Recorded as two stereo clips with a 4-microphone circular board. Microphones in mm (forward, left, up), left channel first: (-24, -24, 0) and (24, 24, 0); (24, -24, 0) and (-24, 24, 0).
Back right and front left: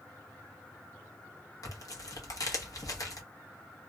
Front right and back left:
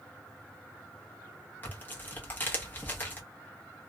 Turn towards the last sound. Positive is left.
turn(degrees=-105)